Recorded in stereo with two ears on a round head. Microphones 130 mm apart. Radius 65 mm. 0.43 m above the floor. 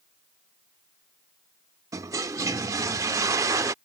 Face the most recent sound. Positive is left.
turn(degrees=-20)  # may be behind; listen again after turning